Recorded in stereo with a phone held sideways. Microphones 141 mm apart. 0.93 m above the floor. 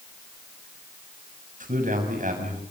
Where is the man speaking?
70° right (ahead or behind), 7.5 m.